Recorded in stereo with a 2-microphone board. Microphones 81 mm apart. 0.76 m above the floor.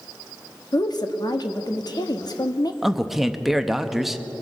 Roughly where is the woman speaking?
Left.